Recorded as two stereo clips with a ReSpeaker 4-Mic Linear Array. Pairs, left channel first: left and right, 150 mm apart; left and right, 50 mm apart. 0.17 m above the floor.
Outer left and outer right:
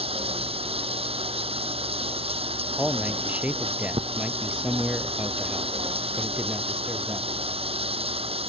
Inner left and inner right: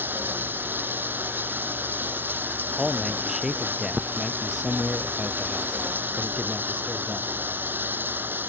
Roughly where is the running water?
Right.